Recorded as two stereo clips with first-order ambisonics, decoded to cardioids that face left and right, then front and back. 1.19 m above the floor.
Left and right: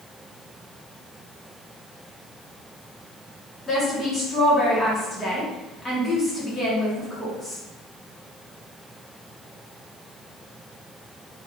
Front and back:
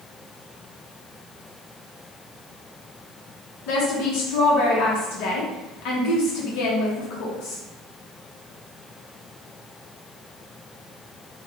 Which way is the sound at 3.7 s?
15° left.